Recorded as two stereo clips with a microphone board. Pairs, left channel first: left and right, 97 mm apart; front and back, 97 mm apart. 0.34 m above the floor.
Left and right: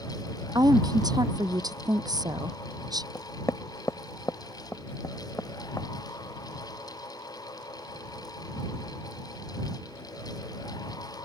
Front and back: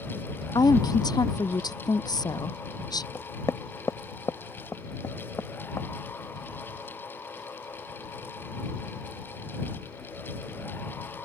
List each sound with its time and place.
0.6 s a woman speaking: 45° right
3.1 s knocking: 45° left